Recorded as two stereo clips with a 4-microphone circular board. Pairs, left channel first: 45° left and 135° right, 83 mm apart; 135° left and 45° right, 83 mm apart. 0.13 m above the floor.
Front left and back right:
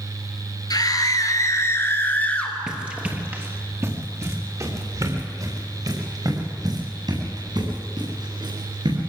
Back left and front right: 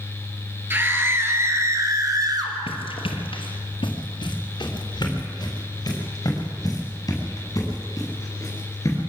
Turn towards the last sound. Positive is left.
turn(degrees=-170)